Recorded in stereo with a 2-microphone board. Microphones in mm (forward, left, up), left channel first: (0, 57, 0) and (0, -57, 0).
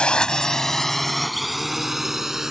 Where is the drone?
10° left (ahead or behind); by 2.5 s 5° right (ahead or behind).